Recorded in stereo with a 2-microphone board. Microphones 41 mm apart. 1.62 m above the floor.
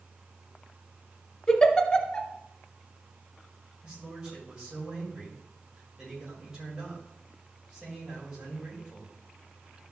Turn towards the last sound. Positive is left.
turn(degrees=-15)  # may be behind; listen again after turning